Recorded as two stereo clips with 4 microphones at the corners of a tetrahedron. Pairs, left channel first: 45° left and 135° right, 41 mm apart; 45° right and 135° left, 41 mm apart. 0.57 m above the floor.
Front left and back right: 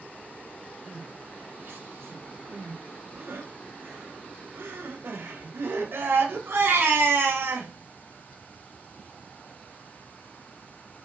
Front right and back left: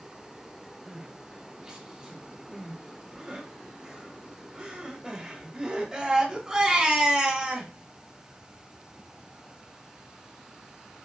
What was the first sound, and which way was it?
Crying, 155° right.